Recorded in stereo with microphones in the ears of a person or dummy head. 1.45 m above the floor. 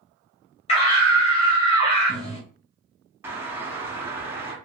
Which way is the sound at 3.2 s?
15° right (ahead or behind).